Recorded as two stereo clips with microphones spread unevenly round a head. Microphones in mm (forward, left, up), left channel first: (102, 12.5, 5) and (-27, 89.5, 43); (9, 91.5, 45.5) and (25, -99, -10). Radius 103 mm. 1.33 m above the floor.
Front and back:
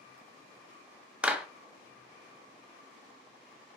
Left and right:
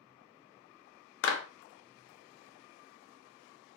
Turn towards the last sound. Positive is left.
turn(degrees=65)